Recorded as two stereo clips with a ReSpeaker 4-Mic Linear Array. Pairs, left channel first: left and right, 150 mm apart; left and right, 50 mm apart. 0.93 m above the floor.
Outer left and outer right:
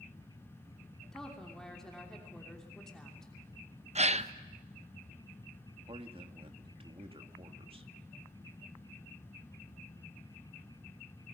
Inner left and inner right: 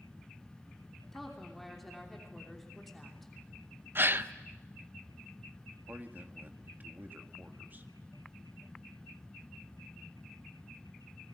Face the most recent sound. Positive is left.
turn(degrees=-40)  # may be behind; listen again after turning